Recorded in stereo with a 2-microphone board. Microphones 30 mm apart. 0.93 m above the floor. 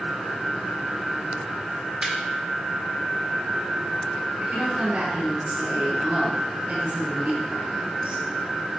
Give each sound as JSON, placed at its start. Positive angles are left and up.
{"t": 2.0, "sound": "laughter", "side_deg": -35, "distance_m": 1.6}
{"t": 4.4, "sound": "a woman speaking", "side_deg": -75, "distance_m": 4.0}